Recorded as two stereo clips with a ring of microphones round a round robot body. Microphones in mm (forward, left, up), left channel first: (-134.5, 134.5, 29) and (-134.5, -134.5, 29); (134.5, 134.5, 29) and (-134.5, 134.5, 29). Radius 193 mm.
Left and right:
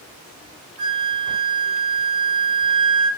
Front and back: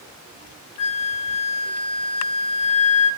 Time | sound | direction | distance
0.8 | a flute | 10° right | 1.3 m